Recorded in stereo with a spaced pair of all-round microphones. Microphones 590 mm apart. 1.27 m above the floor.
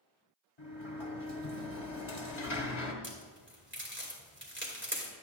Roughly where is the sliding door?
Left.